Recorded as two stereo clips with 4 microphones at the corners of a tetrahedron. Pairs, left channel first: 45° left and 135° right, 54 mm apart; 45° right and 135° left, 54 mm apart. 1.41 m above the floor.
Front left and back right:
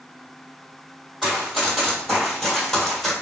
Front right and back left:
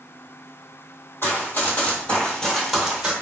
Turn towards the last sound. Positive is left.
turn(degrees=115)